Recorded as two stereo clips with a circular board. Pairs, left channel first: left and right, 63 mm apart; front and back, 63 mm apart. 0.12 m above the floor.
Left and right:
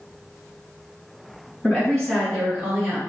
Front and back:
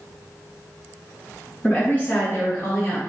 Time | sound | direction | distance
1.6 | a woman speaking | 45° left | 1.7 m